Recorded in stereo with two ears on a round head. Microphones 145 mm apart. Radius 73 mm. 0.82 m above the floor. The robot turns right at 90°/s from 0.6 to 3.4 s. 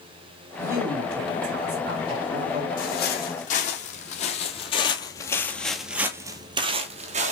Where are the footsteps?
55° left (ahead or behind), 1.9 m; by 7.3 s 45° right (ahead or behind), 1.1 m.